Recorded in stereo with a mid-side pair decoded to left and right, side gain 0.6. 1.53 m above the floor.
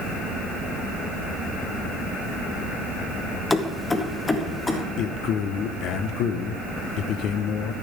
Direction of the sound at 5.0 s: 60° left.